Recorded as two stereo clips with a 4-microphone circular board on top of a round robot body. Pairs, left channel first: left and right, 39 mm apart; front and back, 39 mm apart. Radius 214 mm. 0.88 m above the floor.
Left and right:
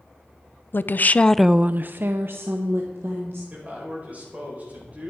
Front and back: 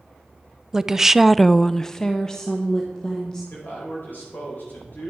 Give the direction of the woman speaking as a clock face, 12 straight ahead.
9 o'clock.